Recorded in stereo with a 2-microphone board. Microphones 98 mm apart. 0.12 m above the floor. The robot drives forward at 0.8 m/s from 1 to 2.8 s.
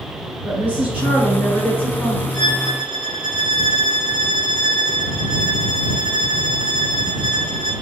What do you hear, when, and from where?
0.5 s a woman speaking: 15° right (ahead or behind), 1.7 m; by 2.2 s 10° right (ahead or behind), 2 m
2.3 s a violin: 55° right (ahead or behind), 1.2 m; by 7.7 s 50° right (ahead or behind), 1.3 m